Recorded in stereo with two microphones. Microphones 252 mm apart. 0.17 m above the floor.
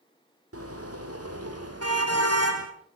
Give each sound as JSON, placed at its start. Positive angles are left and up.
{"t": 0.5, "sound": "a car horn", "side_deg": -65, "distance_m": 3.5}